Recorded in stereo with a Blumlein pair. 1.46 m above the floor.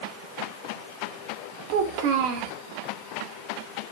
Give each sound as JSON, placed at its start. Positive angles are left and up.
{"t": 1.7, "sound": "a child speaking", "azimuth_deg": -45, "distance_m": 2.5}